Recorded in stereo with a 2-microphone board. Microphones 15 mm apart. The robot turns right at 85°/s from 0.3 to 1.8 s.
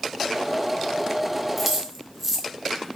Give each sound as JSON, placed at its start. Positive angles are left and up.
{"t": 1.6, "sound": "keys jangling", "side_deg": -5, "distance_m": 0.7}